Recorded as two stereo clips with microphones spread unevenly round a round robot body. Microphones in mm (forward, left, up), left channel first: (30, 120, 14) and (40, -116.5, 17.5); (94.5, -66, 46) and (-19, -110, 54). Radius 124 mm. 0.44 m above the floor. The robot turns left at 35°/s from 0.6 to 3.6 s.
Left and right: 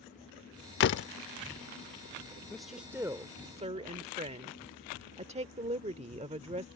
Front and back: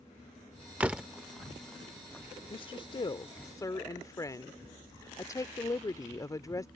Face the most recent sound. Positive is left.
turn(degrees=-30)